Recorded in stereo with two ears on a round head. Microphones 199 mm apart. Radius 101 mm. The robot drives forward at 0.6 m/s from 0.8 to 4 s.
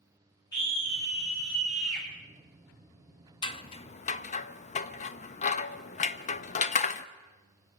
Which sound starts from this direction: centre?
A scream, at 0.5 s.